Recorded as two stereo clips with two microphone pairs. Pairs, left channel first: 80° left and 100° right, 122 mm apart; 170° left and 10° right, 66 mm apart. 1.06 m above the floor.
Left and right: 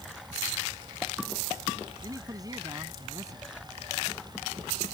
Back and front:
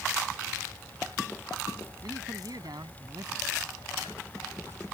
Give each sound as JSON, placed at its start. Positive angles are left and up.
{"t": 2.0, "sound": "a man speaking", "azimuth_deg": -35}